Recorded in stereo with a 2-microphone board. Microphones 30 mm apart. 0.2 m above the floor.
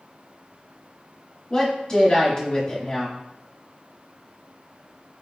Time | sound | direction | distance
1.5 | a woman speaking | 30° left (ahead or behind) | 1.2 m